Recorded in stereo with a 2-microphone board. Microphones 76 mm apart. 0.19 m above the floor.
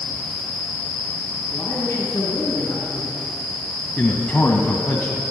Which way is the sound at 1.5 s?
40° left (ahead or behind).